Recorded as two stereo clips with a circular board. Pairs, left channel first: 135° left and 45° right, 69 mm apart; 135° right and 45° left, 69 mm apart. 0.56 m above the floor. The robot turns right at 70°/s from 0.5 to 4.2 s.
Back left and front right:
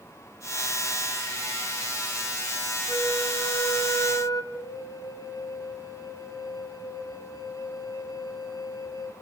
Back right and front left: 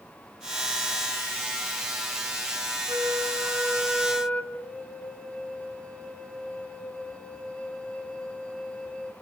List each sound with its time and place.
2.9 s a flute: 65° left, 2.5 m; by 4.4 s 155° left, 2.5 m
4.5 s a flute: 150° left, 4.5 m